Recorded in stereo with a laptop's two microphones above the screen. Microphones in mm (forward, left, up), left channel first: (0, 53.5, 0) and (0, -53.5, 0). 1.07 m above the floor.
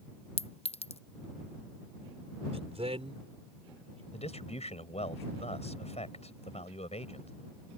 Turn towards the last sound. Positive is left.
turn(degrees=85)